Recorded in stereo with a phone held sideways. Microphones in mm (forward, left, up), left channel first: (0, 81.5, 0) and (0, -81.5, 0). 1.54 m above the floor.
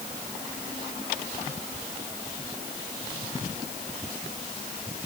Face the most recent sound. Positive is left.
No sound to turn to.